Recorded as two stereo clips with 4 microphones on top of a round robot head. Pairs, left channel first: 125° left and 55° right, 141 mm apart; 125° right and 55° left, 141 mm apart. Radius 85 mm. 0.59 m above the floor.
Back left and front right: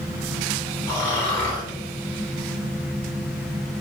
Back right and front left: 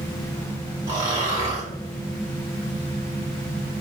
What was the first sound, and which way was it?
Snoring, 70° left.